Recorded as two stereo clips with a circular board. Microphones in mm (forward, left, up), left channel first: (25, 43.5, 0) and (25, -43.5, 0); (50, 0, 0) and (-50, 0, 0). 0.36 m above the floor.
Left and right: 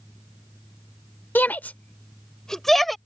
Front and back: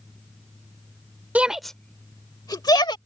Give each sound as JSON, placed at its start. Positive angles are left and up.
{"t": 1.4, "sound": "a shout", "azimuth_deg": 125}